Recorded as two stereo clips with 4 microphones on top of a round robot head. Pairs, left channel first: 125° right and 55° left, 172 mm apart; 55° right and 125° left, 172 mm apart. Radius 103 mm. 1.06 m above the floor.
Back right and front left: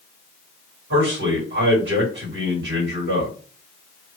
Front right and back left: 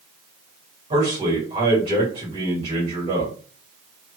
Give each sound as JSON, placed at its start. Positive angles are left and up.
{"t": 0.9, "sound": "a man speaking", "azimuth_deg": 60, "distance_m": 2.0}